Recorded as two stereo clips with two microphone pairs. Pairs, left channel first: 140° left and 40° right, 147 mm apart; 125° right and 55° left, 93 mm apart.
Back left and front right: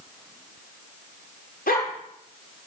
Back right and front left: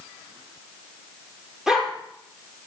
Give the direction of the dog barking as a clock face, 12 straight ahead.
7 o'clock.